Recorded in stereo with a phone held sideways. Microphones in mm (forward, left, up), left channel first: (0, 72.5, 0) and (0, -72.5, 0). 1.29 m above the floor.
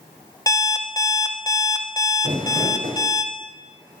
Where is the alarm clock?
25° left (ahead or behind), 0.7 m.